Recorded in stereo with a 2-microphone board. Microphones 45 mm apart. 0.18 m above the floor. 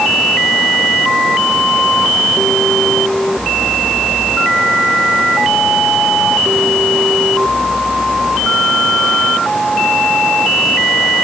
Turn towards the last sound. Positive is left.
No sound to turn to.